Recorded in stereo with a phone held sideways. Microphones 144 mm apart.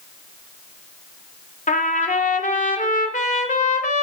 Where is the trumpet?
70° left (ahead or behind), 0.9 m.